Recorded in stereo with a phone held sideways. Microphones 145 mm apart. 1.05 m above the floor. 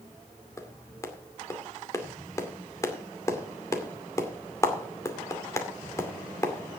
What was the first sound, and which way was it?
A clap, 20° left (ahead or behind).